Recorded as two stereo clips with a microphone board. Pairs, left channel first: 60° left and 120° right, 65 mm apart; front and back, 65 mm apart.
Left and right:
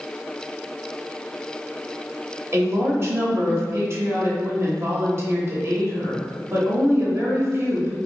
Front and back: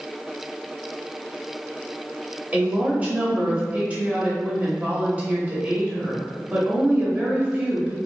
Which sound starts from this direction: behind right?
A woman speaking, at 2.5 s.